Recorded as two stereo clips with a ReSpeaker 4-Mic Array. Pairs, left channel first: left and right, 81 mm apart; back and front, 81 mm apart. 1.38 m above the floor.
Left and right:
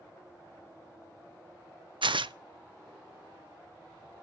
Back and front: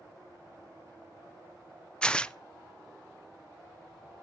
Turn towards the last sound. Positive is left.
turn(degrees=-100)